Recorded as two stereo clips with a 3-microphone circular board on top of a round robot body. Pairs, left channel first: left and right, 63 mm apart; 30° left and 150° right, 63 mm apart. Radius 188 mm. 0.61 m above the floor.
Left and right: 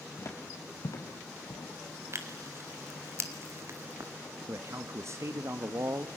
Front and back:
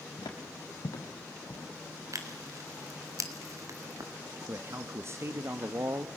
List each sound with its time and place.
0.2 s footsteps: 45° left, 2.5 m; by 1.7 s 75° left, 1.7 m
2.1 s tearing paper: 125° right, 2.5 m
4.5 s a man speaking: 115° right, 1.3 m